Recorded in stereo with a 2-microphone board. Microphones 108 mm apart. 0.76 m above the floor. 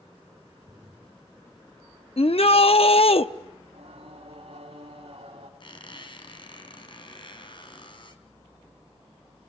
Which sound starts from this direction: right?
Singing, at 3.6 s.